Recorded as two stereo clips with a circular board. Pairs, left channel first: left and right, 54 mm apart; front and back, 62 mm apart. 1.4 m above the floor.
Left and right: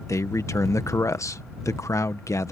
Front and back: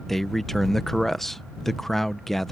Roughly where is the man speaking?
Left.